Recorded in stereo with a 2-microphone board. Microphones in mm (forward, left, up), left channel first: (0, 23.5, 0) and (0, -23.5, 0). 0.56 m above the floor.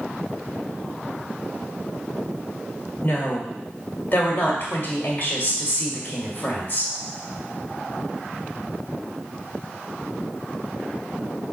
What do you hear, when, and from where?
3.0 s a woman speaking: 45° left (ahead or behind), 1.7 m